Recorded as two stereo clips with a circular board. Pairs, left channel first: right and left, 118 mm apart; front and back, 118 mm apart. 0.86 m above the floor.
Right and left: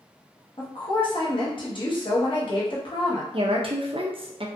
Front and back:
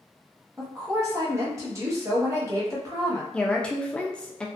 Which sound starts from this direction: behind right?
A woman speaking, at 0.6 s.